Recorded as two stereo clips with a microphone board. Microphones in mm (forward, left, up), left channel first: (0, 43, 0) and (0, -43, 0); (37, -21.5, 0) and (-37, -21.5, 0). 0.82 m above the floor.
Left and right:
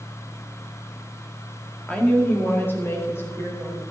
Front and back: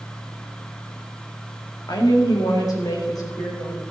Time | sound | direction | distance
1.9 | a woman speaking | 15° left | 2 m